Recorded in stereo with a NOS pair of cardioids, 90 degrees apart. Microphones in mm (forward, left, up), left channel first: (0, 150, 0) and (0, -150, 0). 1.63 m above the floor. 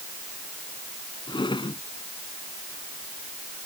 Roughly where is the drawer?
Ahead.